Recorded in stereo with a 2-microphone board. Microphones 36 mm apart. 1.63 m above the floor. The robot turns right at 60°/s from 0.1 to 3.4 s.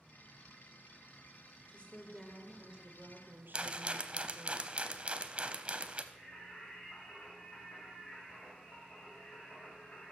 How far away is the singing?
About 3.5 m.